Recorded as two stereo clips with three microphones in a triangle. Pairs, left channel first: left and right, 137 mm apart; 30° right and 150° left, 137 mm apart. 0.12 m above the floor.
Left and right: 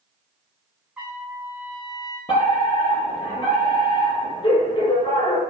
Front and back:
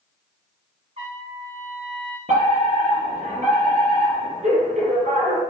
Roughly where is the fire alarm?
Behind left.